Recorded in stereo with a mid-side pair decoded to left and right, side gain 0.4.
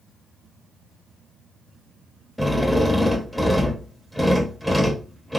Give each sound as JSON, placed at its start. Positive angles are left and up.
{"t": 2.4, "sound": "a drill", "azimuth_deg": 5, "distance_m": 0.7}